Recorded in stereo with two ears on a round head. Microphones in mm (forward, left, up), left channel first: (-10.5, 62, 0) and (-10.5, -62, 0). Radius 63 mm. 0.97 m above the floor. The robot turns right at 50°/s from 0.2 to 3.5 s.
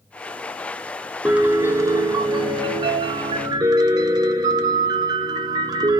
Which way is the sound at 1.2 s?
170° right.